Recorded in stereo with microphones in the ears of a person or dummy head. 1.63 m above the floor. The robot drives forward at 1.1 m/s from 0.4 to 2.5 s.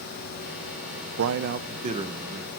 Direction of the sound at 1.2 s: 80° right.